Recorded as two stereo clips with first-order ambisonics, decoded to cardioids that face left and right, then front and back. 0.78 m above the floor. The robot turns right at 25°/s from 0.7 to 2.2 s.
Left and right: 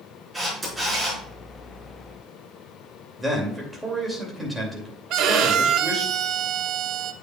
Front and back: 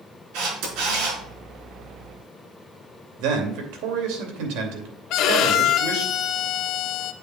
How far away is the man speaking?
About 2.5 m.